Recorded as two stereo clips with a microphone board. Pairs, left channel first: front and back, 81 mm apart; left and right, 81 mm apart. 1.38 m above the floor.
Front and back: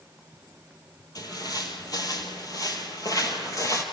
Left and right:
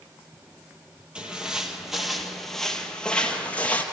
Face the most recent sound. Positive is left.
turn(degrees=30)